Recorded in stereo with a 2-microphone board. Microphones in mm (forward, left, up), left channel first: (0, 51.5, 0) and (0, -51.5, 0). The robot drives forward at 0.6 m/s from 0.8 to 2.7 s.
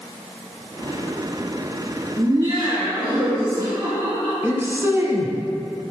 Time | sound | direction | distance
2.2 | laughter | 45° right (ahead or behind) | 1.6 m
4.4 | a man speaking | 25° right (ahead or behind) | 1.2 m